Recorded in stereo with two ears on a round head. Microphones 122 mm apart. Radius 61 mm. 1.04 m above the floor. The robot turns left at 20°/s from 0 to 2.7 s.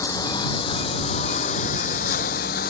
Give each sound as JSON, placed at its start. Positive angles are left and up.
{"t": 0.0, "sound": "a lawn mower", "azimuth_deg": 155}